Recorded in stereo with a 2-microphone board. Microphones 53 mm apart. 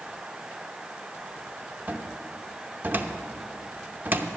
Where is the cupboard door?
35° right (ahead or behind), 0.7 m.